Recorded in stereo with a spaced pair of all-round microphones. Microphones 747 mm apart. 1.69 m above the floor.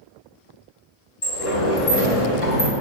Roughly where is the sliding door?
Left.